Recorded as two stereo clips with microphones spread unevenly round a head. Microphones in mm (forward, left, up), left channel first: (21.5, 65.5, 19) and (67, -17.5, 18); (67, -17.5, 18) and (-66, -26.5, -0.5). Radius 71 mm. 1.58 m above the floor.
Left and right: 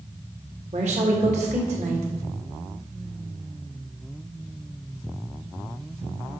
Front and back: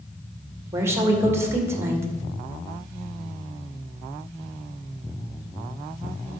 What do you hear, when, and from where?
0.7 s a woman speaking: 105° right, 1.9 m